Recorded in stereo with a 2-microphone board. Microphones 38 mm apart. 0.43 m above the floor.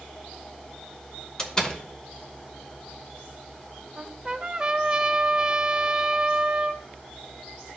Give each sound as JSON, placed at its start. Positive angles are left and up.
{"t": 1.4, "sound": "a door slam", "side_deg": 20, "distance_m": 1.0}
{"t": 4.0, "sound": "a trumpet", "side_deg": -20, "distance_m": 0.5}